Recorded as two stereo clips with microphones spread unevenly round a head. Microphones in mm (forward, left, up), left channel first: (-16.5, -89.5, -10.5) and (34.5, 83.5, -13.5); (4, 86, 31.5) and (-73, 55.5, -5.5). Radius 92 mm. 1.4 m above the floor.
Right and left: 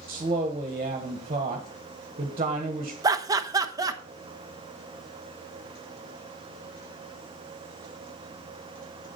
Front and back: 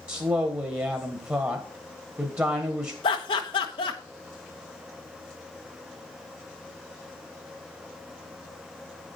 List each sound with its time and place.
0.1 s a woman speaking: 135° left, 1.4 m
3.0 s laughter: 5° left, 1.1 m